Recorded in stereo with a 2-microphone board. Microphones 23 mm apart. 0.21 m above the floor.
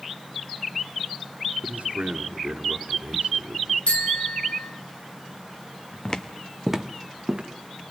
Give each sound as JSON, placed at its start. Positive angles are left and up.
{"t": 1.6, "sound": "a man speaking", "side_deg": -65, "distance_m": 3.0}
{"t": 3.9, "sound": "a bicycle bell", "side_deg": 60, "distance_m": 3.5}
{"t": 6.0, "sound": "footsteps", "side_deg": 40, "distance_m": 0.9}